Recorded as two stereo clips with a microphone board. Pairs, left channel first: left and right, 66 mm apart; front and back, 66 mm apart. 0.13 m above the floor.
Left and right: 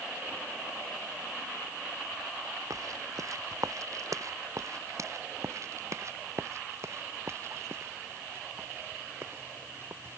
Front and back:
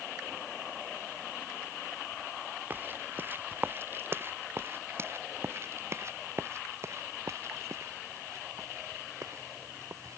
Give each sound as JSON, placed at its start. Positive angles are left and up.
{"t": 2.7, "sound": "footsteps", "azimuth_deg": -120}